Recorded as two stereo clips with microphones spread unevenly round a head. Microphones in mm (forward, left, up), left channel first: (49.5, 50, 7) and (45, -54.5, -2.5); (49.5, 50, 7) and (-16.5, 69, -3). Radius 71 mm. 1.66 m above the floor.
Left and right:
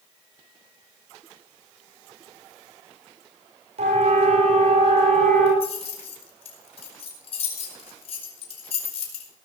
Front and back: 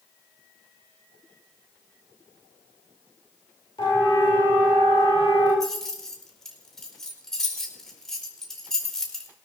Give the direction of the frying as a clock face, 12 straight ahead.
No frying in this recording.